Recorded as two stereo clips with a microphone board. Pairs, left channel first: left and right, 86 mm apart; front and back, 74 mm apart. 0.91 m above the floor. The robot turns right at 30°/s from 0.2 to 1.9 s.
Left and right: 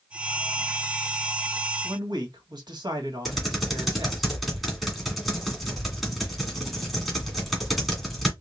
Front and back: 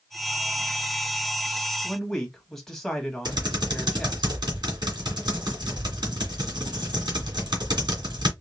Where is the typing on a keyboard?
Straight behind, 1.8 m.